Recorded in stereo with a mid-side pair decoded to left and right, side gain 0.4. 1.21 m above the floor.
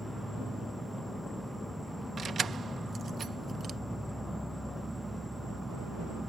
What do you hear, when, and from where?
0.0 s an insect: 10° right
2.2 s keys jangling: 55° right